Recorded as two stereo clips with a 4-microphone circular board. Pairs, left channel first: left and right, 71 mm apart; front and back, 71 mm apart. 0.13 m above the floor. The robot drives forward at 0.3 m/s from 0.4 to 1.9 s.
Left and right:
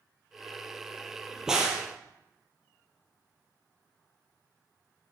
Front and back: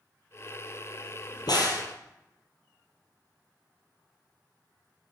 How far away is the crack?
About 1.3 m.